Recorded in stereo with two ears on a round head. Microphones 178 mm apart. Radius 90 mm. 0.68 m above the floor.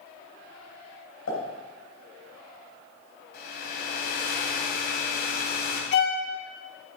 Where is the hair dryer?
55° left (ahead or behind), 2 m.